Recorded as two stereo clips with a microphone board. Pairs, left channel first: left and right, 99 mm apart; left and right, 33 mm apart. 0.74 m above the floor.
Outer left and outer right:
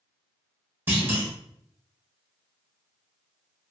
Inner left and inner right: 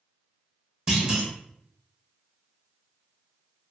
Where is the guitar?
I don't hear a guitar.